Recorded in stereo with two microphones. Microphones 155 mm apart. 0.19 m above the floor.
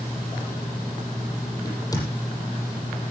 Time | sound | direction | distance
1.6 | a crack | 25° left (ahead or behind) | 7 m